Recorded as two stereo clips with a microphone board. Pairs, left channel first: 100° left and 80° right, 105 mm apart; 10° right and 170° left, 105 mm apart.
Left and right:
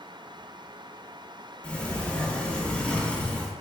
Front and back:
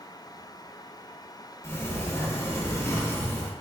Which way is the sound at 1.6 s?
25° left.